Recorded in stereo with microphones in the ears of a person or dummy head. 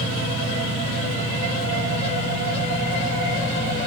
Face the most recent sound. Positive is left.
turn(degrees=-50)  # may be behind; listen again after turning